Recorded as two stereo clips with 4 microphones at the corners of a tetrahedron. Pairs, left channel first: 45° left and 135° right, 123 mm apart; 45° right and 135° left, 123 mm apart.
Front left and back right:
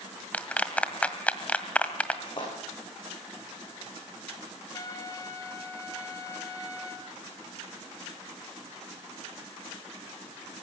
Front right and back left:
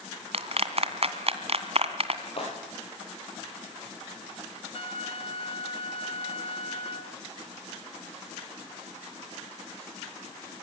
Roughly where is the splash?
Ahead.